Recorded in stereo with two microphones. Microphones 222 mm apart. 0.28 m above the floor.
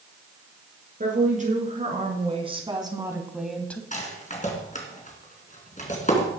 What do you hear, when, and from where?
1.0 s a woman speaking: 35° right (ahead or behind), 5 m; by 3.8 s 10° left (ahead or behind), 1.9 m
3.9 s a rattle: 35° left (ahead or behind), 3 m